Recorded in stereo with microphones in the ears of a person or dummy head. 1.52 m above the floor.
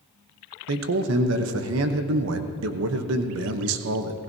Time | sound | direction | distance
0.7 | a man speaking | 80° right | 1.0 m